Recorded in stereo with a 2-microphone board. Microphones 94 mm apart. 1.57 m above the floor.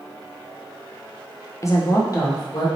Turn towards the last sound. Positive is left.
turn(degrees=40)  # may be behind; listen again after turning